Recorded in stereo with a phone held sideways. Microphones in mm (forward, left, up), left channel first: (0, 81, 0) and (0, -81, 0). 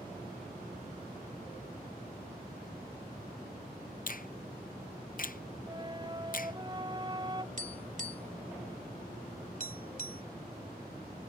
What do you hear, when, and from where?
4.1 s a finger snap: 60° left (ahead or behind)
5.7 s a flute: 30° right (ahead or behind)
7.6 s tapping: 60° right (ahead or behind)